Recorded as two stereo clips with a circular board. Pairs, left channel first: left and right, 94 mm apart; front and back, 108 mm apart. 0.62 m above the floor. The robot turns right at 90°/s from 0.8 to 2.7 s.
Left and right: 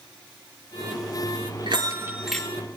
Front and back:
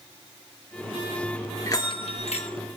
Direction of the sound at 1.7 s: 60° right.